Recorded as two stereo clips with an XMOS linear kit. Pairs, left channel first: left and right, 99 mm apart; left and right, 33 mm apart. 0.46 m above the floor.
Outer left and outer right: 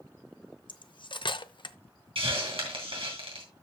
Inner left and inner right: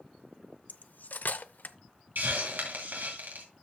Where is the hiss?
75° right (ahead or behind), 3 m.